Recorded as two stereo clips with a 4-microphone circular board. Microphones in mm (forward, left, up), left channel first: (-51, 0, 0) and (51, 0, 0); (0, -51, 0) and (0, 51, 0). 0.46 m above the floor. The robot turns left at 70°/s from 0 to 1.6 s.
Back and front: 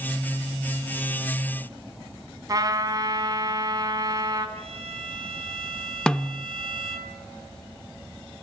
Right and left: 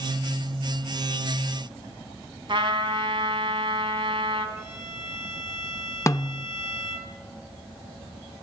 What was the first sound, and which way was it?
A trumpet, 55° left.